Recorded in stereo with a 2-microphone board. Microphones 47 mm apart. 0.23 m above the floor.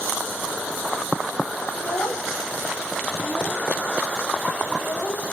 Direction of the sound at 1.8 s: 80° left.